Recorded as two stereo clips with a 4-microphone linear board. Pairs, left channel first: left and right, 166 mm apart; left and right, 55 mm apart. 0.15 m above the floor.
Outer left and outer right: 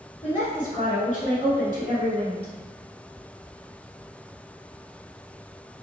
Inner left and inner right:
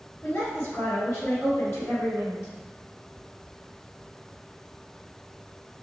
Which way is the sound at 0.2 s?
40° left (ahead or behind).